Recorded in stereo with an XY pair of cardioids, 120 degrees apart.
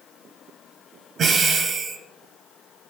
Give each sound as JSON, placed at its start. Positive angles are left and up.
{"t": 1.2, "sound": "breathing", "azimuth_deg": -45, "distance_m": 1.0}